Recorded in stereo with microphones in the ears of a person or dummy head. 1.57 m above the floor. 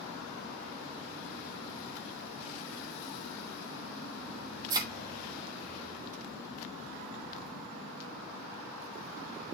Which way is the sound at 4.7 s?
20° right (ahead or behind).